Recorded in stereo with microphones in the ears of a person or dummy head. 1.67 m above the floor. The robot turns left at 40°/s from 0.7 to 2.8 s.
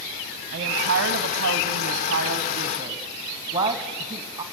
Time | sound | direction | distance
0.5 | a woman speaking | 70° right | 0.9 m